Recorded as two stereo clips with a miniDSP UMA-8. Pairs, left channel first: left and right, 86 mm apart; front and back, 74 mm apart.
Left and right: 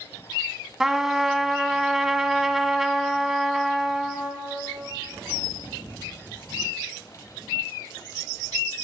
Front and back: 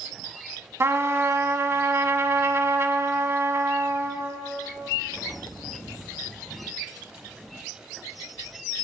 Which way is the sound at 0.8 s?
170° right.